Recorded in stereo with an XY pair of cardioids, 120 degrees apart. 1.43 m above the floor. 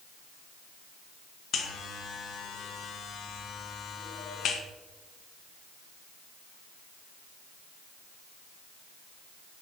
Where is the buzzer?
60° left, 1.0 m.